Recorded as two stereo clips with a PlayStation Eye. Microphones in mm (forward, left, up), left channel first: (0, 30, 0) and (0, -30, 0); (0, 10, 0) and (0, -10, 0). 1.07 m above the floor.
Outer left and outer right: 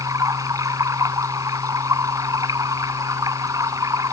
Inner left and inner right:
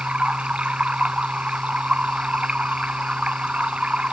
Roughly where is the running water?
Right.